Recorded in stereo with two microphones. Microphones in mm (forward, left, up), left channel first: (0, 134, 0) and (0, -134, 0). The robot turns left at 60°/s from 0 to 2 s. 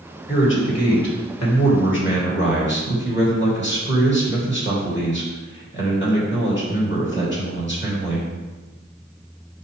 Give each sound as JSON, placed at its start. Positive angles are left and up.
{"t": 0.3, "sound": "a man speaking", "azimuth_deg": 145, "distance_m": 2.5}